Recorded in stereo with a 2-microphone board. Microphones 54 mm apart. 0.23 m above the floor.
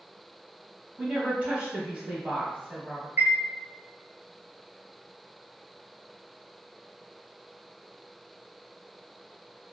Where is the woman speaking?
25° right (ahead or behind), 1.3 m.